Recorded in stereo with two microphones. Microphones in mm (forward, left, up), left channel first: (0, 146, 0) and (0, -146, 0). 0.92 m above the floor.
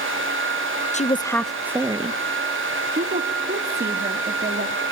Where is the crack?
No crack in this recording.